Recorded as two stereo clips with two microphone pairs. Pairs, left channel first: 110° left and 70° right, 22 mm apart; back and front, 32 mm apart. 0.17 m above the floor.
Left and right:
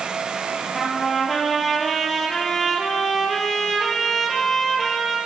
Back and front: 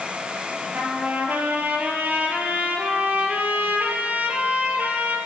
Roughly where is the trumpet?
Ahead left.